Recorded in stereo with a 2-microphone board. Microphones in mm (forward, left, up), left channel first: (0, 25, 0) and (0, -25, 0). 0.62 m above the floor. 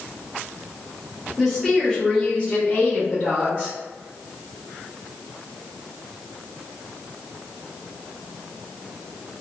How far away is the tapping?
I don't hear tapping.